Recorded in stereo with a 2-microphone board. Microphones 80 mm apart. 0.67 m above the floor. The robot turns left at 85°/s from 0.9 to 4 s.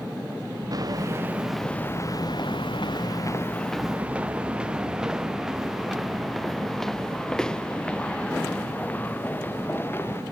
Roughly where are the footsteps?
Right.